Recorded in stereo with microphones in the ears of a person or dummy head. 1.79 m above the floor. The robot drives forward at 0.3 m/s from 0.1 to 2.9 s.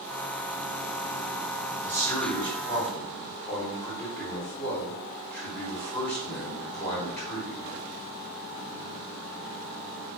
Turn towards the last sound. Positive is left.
turn(degrees=10)  # may be behind; listen again after turning